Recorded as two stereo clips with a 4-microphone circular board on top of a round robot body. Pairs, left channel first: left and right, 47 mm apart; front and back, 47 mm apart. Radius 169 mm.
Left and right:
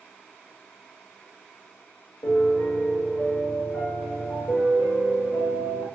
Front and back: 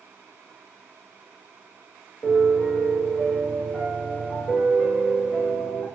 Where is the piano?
100° left, 1.4 m.